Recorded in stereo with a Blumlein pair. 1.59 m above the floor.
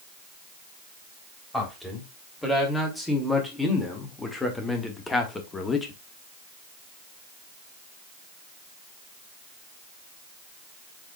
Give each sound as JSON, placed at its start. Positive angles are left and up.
{"t": 1.5, "sound": "a man speaking", "azimuth_deg": 5, "distance_m": 3.5}